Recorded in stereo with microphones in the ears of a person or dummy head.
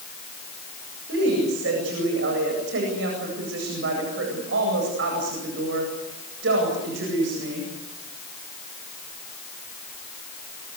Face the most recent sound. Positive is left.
turn(degrees=-75)  # may be behind; listen again after turning